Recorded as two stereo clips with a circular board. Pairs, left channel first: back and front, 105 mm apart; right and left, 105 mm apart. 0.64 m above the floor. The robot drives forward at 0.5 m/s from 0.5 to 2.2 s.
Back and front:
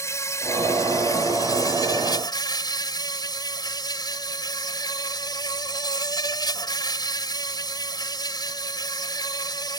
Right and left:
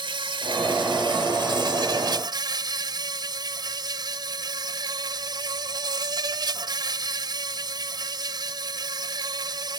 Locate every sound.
0.0 s an insect: 120° left; by 9.8 s 135° left